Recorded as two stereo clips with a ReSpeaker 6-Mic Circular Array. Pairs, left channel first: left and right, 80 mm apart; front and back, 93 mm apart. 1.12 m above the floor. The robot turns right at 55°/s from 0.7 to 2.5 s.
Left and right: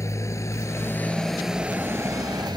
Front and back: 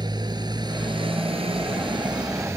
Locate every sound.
0.0 s a motorcycle: 140° left; by 2.6 s 120° right